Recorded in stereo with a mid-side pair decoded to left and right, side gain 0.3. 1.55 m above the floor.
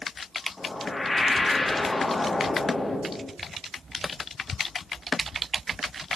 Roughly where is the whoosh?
Ahead left.